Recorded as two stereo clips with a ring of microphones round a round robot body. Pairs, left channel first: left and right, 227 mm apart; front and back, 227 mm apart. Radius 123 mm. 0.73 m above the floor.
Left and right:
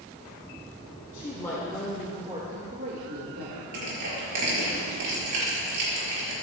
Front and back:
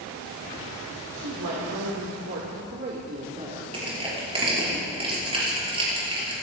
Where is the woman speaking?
160° left, 2 m; by 3.6 s 115° right, 2.5 m.